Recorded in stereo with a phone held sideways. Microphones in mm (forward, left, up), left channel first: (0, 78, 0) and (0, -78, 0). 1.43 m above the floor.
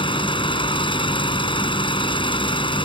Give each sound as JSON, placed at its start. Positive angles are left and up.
{"t": 0.0, "sound": "an engine running", "side_deg": 35}